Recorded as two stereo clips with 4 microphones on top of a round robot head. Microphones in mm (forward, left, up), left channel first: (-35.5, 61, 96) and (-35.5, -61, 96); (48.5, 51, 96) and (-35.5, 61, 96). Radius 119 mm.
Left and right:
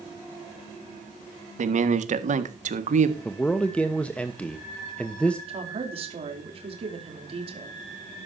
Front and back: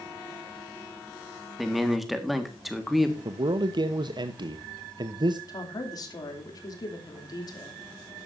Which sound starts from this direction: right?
A man speaking, at 1.6 s.